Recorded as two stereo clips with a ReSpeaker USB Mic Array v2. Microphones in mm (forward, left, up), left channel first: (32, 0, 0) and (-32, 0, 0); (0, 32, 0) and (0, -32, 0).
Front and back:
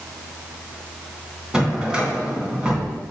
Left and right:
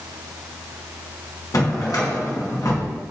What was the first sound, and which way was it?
A drawer, 105° left.